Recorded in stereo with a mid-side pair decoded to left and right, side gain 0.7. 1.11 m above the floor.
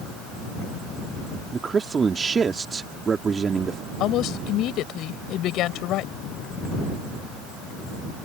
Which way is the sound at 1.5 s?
25° right.